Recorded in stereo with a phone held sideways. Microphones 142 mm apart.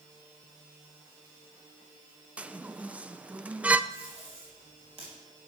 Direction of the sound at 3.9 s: 45° right (ahead or behind).